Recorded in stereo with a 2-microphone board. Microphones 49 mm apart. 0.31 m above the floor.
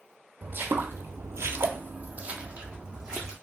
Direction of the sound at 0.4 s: 40° right (ahead or behind).